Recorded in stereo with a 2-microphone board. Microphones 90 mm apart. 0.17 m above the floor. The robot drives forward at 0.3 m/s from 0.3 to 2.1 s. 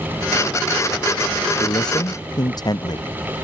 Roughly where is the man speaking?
Left.